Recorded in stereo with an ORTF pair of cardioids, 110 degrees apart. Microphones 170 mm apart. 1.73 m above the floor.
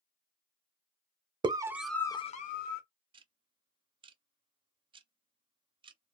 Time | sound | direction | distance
1.4 | a scream | 25° right | 0.9 m
3.1 | ticking | 30° right | 0.5 m